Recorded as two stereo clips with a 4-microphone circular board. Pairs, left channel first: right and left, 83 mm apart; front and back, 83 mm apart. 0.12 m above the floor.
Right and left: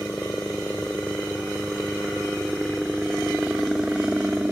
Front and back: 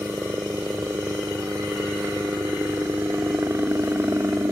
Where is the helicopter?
150° right; by 4.5 s 150° left.